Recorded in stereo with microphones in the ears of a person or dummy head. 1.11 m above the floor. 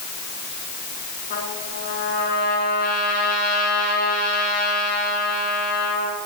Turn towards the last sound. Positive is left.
turn(degrees=60)  # may be behind; listen again after turning